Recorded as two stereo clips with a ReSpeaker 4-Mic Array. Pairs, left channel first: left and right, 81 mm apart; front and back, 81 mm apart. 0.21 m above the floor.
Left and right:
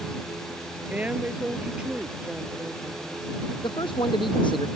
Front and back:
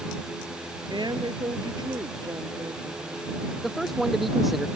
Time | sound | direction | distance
0.9 | a woman speaking | 160° right | ?
3.6 | a man speaking | 90° left | ?